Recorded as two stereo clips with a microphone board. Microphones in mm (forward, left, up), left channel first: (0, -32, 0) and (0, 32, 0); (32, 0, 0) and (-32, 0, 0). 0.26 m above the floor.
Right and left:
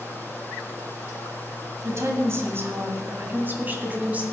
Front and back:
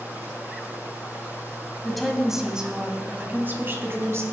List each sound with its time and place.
1.8 s a woman speaking: 85° left, 1.5 m; by 4.2 s 150° left, 1.8 m